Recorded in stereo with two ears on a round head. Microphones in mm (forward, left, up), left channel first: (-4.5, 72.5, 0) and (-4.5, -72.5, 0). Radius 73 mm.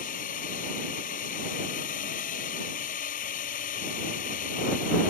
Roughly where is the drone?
Left.